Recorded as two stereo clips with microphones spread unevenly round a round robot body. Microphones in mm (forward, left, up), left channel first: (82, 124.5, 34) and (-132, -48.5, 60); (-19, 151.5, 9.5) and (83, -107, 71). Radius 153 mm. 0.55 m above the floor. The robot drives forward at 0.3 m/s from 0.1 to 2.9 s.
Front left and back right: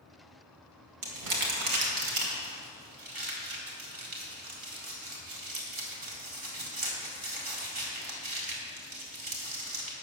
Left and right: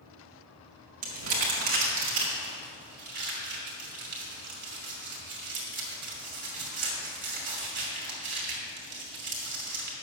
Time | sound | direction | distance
1.0 | crumpling | 115° right | 2.5 m